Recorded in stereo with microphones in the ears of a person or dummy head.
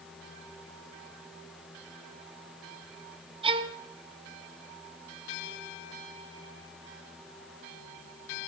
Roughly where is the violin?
Right.